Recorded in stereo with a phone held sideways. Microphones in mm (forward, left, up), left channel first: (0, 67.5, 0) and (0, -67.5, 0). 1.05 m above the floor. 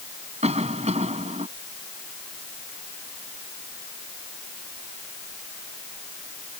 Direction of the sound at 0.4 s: 55° right (ahead or behind).